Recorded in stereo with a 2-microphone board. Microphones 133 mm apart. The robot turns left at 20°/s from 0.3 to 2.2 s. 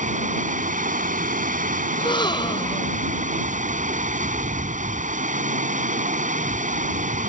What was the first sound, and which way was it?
Running water, 70° right.